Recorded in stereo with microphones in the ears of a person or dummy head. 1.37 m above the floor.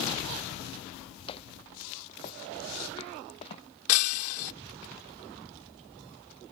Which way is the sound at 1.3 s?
30° left (ahead or behind).